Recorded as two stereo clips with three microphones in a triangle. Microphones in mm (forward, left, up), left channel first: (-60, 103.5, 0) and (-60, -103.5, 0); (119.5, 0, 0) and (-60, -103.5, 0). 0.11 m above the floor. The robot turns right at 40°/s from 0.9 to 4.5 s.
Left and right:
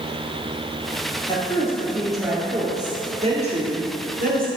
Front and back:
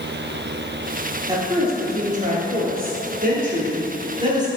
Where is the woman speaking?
145° left, 2 m; by 4.5 s 85° right, 2 m.